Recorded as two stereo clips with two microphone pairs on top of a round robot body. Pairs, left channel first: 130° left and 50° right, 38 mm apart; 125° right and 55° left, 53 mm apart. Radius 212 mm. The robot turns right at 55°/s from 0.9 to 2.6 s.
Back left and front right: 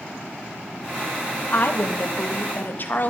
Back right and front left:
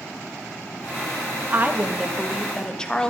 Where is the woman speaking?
100° left, 1.6 m; by 3.1 s 160° left, 1.6 m.